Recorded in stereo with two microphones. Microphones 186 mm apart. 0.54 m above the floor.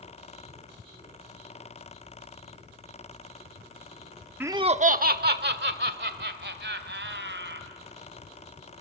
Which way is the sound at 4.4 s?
10° right (ahead or behind).